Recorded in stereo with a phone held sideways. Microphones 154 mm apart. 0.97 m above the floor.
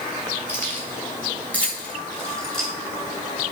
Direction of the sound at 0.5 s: 15° left (ahead or behind).